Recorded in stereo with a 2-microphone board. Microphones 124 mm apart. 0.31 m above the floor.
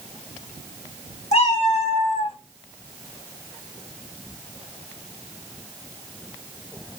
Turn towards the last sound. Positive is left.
turn(degrees=55)  # may be behind; listen again after turning